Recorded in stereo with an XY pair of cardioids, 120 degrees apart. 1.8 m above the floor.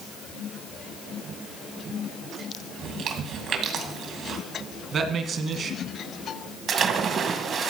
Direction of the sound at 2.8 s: 55° right.